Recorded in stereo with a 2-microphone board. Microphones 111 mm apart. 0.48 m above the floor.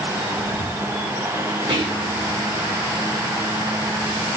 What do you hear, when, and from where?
1.7 s whispering: 50° right (ahead or behind), 1.9 m